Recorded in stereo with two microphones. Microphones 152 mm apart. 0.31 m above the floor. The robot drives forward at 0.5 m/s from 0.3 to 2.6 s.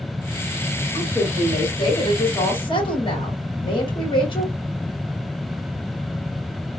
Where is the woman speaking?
35° left (ahead or behind), 1.7 m; by 4.5 s 30° left (ahead or behind), 1.9 m.